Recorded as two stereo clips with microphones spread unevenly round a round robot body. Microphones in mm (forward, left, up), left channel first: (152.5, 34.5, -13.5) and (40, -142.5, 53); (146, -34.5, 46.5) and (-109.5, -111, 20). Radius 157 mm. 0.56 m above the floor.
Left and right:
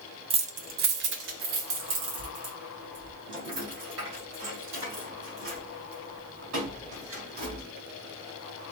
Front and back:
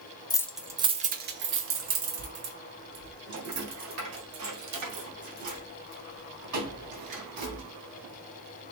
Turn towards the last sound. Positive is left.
turn(degrees=-165)